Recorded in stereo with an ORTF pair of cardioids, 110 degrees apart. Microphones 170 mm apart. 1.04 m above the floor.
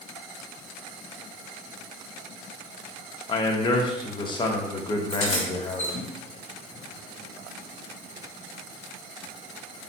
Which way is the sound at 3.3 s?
25° left.